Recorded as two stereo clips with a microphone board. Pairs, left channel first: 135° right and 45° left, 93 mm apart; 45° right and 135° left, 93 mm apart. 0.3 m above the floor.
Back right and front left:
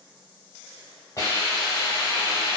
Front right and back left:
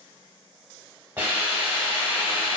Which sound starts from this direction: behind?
A hiss, at 1.2 s.